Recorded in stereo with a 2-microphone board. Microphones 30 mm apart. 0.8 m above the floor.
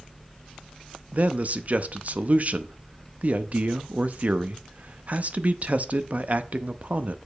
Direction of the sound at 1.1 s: 50° right (ahead or behind).